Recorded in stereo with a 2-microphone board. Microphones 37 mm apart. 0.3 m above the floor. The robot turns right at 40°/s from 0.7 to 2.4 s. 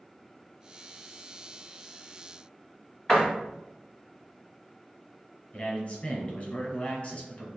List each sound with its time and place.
3.1 s a door slam: 20° left (ahead or behind), 1.7 m
5.5 s a man speaking: 45° left (ahead or behind), 2 m